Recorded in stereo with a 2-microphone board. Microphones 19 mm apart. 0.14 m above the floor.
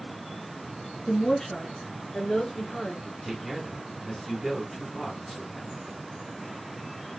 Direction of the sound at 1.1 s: 25° left (ahead or behind).